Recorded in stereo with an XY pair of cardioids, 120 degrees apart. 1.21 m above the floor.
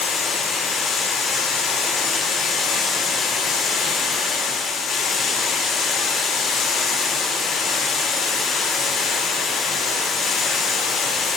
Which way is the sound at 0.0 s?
45° left.